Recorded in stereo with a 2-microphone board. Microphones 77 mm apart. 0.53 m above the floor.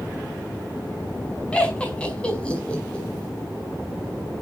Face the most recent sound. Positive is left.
turn(degrees=15)  # may be behind; listen again after turning